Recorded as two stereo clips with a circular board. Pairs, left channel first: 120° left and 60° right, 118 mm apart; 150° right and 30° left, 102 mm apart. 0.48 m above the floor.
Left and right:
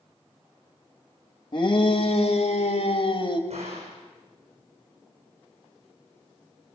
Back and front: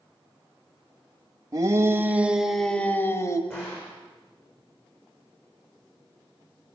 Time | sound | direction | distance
1.5 | a shout | 80° left | 2.5 m
3.5 | a gunshot | 80° right | 6.5 m